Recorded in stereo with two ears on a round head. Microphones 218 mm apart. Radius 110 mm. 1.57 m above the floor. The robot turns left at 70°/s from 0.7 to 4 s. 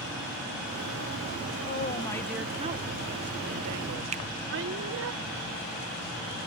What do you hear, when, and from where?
1.7 s a woman speaking: 45° left; by 5.1 s 120° right
4.1 s a finger snap: 30° right (ahead or behind)